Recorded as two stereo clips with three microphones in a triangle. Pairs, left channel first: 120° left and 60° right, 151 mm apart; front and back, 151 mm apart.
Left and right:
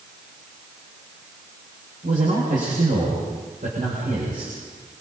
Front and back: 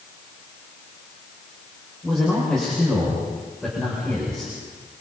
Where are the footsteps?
No footsteps in this recording.